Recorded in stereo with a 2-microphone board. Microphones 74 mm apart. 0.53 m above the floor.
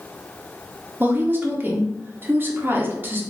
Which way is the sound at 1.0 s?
30° right (ahead or behind).